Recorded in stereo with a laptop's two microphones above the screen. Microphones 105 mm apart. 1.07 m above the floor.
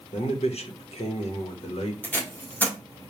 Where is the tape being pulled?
15° left (ahead or behind), 1.7 m.